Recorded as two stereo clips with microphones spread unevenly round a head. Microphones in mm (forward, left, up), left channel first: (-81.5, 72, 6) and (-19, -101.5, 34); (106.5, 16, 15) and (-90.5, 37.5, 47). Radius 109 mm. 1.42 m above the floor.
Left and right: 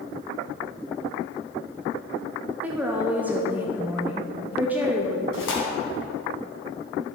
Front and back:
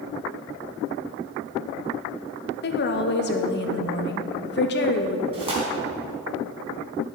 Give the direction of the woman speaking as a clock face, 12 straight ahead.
12 o'clock.